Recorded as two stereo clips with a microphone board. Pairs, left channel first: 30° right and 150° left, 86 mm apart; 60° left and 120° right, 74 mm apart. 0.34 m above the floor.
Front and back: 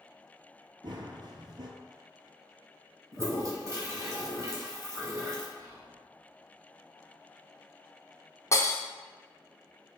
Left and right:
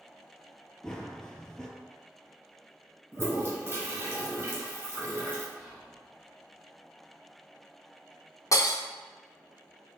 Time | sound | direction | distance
0.8 | running footsteps | 140° left | 0.5 m
3.1 | a toilet flushing | 170° right | 1.0 m
5.6 | whispering | 145° left | 1.8 m
8.5 | breaking glass | 20° left | 0.7 m